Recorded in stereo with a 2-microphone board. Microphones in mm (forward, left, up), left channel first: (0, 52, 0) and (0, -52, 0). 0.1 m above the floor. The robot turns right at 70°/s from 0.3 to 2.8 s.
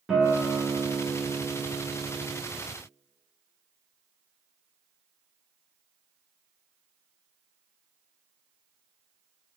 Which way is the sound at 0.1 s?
5° right (ahead or behind).